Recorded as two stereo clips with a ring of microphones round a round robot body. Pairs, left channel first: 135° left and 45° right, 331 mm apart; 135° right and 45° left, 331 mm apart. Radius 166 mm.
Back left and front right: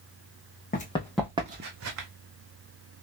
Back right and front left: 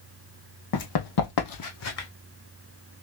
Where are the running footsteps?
160° right, 1.0 m; by 2.1 s 85° right, 1.1 m.